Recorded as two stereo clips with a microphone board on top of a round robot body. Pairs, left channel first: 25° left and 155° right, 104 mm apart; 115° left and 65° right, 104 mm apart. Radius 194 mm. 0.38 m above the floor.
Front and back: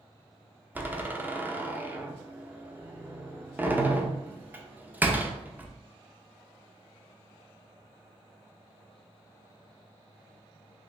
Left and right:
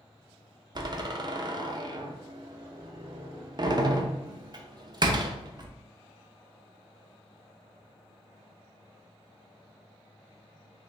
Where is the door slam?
90° right, 0.7 m.